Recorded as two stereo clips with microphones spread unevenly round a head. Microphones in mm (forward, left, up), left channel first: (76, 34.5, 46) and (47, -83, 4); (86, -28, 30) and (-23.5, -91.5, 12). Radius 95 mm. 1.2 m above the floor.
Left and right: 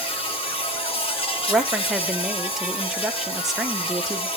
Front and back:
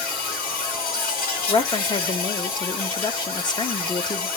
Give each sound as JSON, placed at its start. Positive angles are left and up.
{"t": 0.0, "sound": "an insect", "azimuth_deg": 35, "distance_m": 1.9}
{"t": 1.5, "sound": "a woman speaking", "azimuth_deg": -25, "distance_m": 1.2}